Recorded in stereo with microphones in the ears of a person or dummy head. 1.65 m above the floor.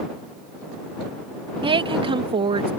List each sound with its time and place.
1.6 s a woman speaking: 25° right (ahead or behind)